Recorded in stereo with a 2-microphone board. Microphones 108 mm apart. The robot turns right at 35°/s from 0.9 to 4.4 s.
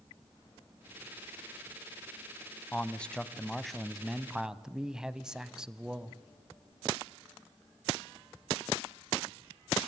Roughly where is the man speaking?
Centre.